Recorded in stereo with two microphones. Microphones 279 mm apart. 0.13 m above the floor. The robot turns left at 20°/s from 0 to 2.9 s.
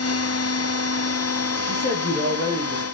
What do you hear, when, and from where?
1.7 s a man speaking: 25° left (ahead or behind), 4 m; by 2.9 s 5° left (ahead or behind), 4 m